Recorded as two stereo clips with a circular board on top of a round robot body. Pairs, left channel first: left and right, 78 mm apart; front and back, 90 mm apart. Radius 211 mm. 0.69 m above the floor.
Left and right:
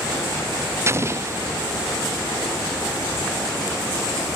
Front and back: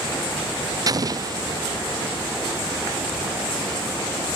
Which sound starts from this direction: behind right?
An explosion, at 0.9 s.